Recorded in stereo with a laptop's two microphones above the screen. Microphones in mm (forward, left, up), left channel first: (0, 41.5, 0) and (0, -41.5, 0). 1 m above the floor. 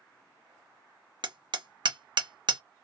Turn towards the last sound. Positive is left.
turn(degrees=-70)  # may be behind; listen again after turning